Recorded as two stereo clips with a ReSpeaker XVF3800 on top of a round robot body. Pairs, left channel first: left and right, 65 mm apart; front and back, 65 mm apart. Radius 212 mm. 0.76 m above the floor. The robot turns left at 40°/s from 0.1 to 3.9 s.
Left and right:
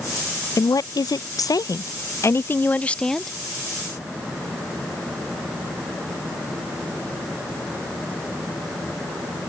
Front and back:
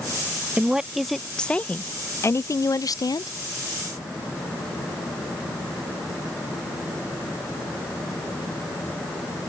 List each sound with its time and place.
0.6 s a woman speaking: 110° left; by 3.3 s straight ahead